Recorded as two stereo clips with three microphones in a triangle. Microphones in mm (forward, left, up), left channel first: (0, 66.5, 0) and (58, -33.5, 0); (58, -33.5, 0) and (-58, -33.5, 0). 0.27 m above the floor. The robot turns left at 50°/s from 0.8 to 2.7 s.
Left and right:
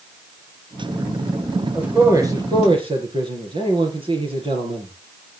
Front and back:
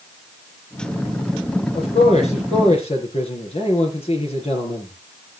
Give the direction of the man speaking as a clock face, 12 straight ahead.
11 o'clock.